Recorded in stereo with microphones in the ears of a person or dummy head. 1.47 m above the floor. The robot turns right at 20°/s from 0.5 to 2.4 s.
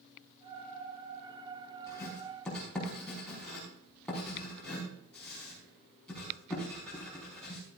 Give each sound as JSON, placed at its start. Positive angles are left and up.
{"t": 1.9, "sound": "writing", "side_deg": 10, "distance_m": 5.0}